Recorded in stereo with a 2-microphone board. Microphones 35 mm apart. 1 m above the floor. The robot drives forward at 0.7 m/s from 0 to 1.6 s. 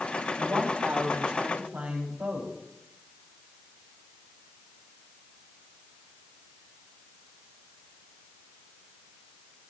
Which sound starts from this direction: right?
A woman speaking, at 0.4 s.